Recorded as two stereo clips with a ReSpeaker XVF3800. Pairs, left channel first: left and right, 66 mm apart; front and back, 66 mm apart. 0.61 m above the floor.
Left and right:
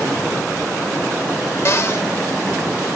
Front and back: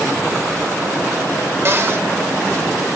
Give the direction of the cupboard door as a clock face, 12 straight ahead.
8 o'clock.